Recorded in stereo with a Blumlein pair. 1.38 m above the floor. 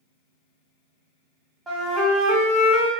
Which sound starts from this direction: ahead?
A flute, at 1.7 s.